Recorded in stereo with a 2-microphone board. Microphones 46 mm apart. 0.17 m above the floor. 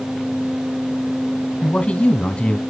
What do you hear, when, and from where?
1.6 s a man speaking: 25° left (ahead or behind), 1.3 m